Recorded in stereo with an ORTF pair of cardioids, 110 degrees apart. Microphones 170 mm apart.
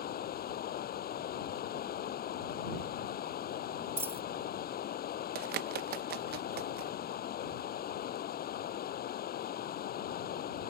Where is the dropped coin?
15° right.